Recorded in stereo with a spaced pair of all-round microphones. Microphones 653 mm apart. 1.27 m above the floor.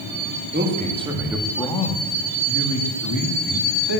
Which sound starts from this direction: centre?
A man speaking, at 0.5 s.